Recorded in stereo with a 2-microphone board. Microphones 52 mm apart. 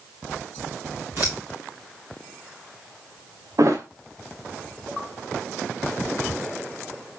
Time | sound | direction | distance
1.2 | scissors | 50° right (ahead or behind) | 3.5 m
3.6 | a thud | 65° right (ahead or behind) | 1.6 m